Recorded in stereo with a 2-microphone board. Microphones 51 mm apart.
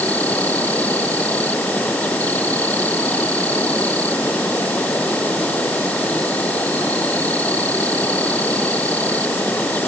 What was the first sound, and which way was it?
An insect, 30° left (ahead or behind).